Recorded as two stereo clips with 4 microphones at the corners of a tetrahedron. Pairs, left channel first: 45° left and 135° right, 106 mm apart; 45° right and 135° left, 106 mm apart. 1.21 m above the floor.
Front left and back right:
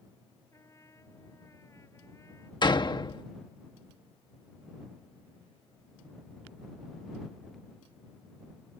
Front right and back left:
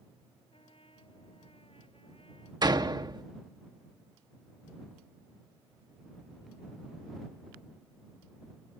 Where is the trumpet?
15° right.